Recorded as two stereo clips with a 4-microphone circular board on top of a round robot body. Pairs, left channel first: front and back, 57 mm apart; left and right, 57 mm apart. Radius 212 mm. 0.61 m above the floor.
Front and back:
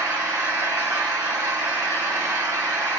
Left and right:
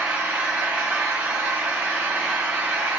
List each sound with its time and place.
0.0 s an engine running: 155° right, 2.5 m